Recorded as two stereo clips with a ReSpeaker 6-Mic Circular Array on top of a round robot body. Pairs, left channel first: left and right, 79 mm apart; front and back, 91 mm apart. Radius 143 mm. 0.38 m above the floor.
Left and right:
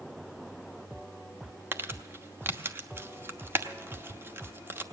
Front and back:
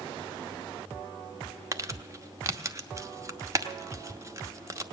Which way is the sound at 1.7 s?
140° right.